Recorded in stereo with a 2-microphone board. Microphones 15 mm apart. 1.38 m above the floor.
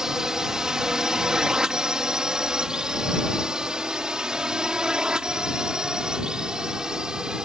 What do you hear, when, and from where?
0.0 s a drone: 55° right (ahead or behind)